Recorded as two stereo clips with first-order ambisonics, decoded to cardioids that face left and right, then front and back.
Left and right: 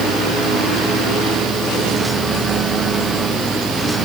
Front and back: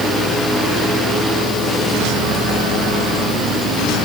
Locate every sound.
Only background noise.